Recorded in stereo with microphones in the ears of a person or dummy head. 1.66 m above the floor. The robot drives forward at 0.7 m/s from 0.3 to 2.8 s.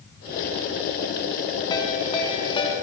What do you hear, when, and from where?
1.7 s a ringtone: 20° left (ahead or behind), 3 m; by 2.7 s 30° left (ahead or behind), 2.5 m